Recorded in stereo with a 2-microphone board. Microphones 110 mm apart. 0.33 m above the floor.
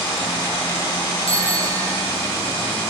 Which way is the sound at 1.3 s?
65° left (ahead or behind).